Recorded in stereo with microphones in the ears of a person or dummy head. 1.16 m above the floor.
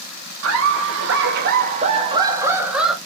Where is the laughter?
85° right, 1.5 m; by 3.0 s 5° right (ahead or behind), 1.5 m.